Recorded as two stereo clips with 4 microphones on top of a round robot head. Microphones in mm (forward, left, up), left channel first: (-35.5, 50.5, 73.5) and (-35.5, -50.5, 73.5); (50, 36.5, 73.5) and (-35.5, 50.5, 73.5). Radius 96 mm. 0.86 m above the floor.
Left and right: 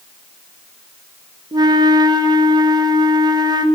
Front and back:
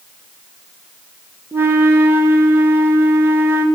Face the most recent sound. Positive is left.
turn(degrees=-130)